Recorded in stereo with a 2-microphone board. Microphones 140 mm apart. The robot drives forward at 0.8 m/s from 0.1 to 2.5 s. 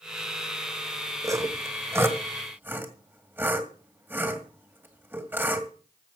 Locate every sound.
1.2 s sawing: 25° right (ahead or behind), 1.2 m; by 5.7 s 15° right (ahead or behind), 2.0 m